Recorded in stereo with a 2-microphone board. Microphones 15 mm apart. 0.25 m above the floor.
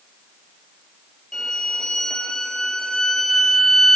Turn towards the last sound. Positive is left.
turn(degrees=55)  # may be behind; listen again after turning